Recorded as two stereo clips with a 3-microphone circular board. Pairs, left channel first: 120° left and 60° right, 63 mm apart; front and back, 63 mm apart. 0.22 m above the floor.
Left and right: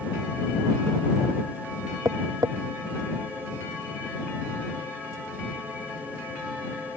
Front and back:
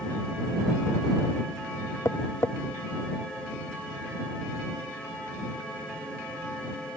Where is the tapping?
45° right.